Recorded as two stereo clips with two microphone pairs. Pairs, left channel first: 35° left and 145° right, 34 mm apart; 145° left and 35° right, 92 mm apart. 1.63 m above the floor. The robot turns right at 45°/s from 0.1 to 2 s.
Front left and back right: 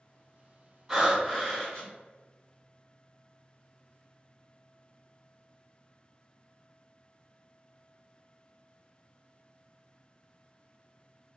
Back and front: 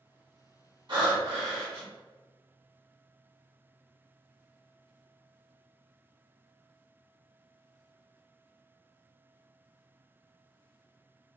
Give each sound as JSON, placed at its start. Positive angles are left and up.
{"t": 0.9, "sound": "breathing", "azimuth_deg": -55, "distance_m": 1.3}